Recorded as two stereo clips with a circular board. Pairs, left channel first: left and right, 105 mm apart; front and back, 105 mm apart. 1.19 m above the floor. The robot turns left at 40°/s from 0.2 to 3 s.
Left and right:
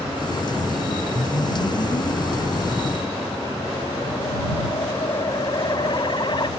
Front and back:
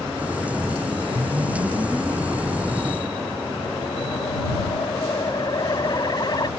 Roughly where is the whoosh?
Behind left.